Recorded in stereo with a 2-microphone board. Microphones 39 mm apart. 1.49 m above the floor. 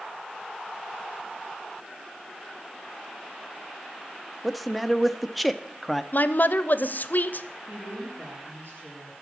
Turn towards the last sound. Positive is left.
turn(degrees=-60)  # may be behind; listen again after turning